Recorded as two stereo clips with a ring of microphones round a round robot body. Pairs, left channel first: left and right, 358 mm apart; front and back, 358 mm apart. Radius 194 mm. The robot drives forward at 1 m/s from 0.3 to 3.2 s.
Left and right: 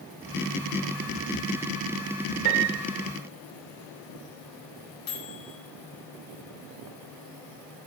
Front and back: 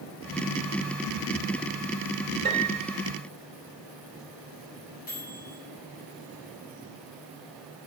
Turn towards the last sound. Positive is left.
turn(degrees=70)